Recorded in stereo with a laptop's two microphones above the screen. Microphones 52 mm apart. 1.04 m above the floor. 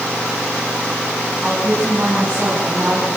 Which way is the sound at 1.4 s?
25° right (ahead or behind).